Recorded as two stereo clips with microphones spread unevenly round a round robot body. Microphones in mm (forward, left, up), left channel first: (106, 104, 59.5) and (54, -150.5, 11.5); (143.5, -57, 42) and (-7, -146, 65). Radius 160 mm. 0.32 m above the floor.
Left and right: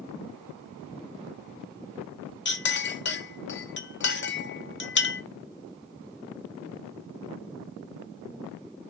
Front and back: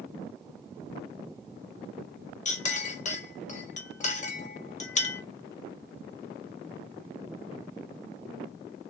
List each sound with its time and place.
2.5 s a clink: 35° left, 0.7 m